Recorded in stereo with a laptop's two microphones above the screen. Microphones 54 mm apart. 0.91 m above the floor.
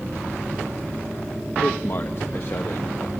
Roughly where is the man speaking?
Left.